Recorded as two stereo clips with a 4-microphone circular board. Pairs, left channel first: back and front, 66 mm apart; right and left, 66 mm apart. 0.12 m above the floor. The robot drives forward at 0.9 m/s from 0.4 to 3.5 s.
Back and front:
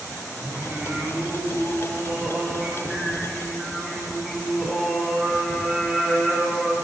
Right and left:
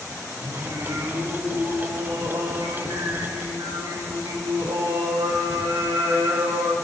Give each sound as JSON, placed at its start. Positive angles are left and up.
{"t": 0.4, "sound": "singing", "azimuth_deg": 60, "distance_m": 7.0}